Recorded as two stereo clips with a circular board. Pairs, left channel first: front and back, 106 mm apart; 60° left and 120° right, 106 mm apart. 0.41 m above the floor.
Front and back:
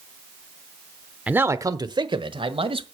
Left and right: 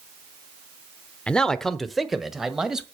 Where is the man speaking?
125° left, 0.7 m; by 2.8 s 155° left, 1.8 m.